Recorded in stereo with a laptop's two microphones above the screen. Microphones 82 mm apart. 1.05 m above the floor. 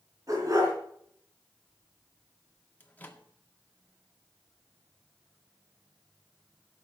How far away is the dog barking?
About 4 m.